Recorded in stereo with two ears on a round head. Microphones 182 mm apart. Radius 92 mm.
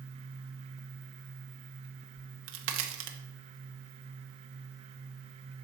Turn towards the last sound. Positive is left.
turn(degrees=-70)  # may be behind; listen again after turning